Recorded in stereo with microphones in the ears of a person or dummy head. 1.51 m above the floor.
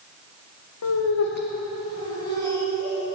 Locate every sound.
0.8 s laughter: 70° left (ahead or behind), 0.8 m; by 3.1 s 10° left (ahead or behind), 2.5 m